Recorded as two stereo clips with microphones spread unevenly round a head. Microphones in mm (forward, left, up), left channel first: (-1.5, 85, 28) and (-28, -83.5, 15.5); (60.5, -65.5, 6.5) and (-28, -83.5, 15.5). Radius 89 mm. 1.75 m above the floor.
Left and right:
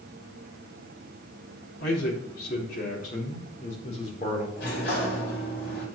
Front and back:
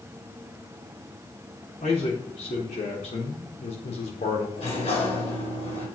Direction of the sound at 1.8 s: 45° left.